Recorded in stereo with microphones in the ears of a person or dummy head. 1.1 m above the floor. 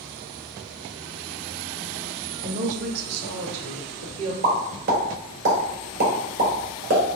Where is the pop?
45° right (ahead or behind), 1.2 m.